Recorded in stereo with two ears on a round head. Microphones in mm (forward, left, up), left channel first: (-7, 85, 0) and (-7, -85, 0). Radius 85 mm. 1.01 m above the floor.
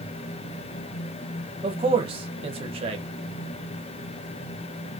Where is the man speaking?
30° right (ahead or behind), 0.9 m.